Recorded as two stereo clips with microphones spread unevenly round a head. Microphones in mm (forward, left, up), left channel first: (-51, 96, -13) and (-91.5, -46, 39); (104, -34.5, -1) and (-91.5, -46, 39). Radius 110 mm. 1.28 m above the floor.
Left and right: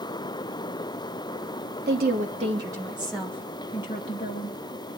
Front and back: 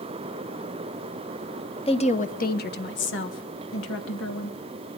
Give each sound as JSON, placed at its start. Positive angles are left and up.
{"t": 1.9, "sound": "a woman speaking", "azimuth_deg": -55, "distance_m": 1.4}